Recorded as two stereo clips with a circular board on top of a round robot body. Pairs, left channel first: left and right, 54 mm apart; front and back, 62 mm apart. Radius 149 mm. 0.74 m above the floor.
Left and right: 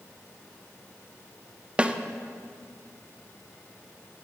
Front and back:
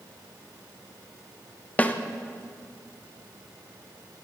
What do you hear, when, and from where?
1.8 s a snare drum: 40° right, 0.9 m